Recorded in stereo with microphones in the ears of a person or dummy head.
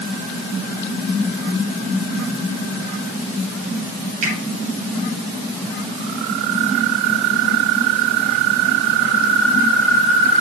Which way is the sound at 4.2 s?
50° right (ahead or behind).